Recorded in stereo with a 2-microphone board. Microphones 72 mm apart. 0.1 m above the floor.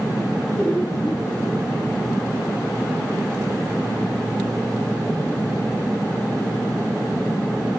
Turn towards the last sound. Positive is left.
turn(degrees=15)  # may be behind; listen again after turning